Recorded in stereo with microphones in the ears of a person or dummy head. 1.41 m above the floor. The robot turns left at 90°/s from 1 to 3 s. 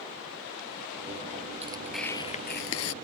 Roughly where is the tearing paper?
Behind right.